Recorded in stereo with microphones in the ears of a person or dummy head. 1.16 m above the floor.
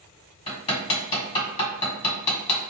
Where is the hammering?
30° left (ahead or behind), 1.8 m.